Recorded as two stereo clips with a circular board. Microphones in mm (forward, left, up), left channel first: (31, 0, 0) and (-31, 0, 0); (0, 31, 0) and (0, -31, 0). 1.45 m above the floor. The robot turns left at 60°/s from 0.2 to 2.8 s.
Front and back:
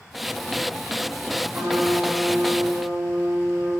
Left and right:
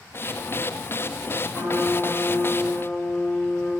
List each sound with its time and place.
1.5 s a trumpet: 145° right, 2 m; by 3.7 s 135° left, 2 m